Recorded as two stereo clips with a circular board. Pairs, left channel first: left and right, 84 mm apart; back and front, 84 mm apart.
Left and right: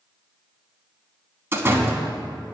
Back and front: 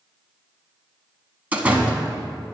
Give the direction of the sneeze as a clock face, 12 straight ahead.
No sneeze in this recording.